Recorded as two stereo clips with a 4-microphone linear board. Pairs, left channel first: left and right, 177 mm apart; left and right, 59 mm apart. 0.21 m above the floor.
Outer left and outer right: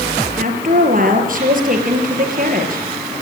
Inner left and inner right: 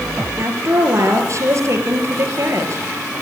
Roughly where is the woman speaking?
Right.